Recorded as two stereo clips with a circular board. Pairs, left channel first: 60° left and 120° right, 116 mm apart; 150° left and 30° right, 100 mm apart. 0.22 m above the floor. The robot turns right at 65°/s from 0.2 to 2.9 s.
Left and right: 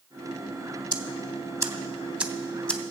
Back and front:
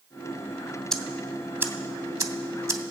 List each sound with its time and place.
0.9 s ticking: 130° right, 0.8 m; by 2.8 s 5° right, 0.8 m